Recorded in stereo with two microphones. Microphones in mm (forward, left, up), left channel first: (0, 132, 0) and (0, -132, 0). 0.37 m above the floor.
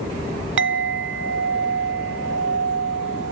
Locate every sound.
0.6 s a clink: 50° right (ahead or behind), 0.5 m